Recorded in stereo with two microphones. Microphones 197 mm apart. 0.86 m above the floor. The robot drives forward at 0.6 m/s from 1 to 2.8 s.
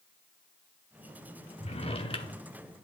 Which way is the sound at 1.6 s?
35° left (ahead or behind).